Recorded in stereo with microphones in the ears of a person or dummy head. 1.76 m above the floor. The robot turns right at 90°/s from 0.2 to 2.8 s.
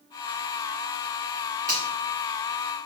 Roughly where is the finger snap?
Centre.